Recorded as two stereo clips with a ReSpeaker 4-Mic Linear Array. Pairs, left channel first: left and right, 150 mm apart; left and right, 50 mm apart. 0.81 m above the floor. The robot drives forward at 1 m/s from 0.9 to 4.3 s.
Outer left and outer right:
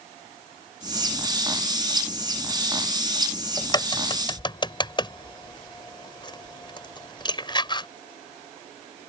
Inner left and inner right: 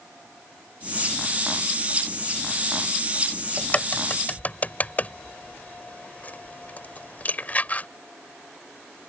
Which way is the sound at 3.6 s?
30° left (ahead or behind).